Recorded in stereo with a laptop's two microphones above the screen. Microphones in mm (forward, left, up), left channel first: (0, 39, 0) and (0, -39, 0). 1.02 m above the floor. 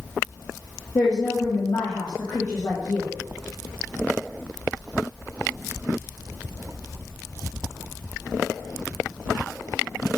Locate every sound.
0.9 s a woman speaking: 55° left (ahead or behind), 1.2 m